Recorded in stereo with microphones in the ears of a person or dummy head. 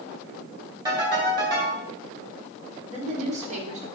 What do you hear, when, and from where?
0.8 s a ringtone: 25° right (ahead or behind), 4 m
2.9 s a woman speaking: 40° right (ahead or behind), 2.5 m